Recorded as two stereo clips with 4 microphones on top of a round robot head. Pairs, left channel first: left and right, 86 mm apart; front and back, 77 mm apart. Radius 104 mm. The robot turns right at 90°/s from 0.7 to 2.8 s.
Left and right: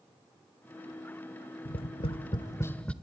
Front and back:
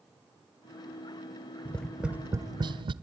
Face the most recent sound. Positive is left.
turn(degrees=170)